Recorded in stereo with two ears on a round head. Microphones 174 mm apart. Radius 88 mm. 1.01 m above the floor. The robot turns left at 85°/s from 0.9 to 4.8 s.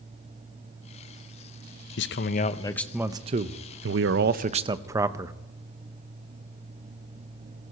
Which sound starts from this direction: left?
A man speaking, at 2.0 s.